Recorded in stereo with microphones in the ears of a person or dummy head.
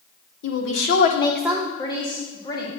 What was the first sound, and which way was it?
A woman speaking, 75° left (ahead or behind).